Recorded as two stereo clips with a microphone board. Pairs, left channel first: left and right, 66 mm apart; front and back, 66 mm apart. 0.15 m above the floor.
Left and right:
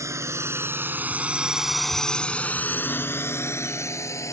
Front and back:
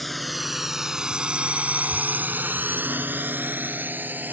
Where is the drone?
85° right; by 4.3 s 120° left.